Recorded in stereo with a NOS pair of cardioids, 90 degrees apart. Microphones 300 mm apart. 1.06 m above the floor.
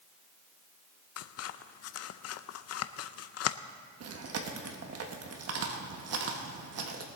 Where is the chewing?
55° right, 1.5 m.